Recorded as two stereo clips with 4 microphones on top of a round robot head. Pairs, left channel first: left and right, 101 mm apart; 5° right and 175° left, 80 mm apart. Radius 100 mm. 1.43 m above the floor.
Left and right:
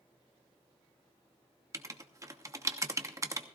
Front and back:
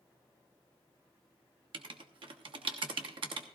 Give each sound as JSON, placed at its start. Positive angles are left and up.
{"t": 1.7, "sound": "writing", "azimuth_deg": -150, "distance_m": 1.0}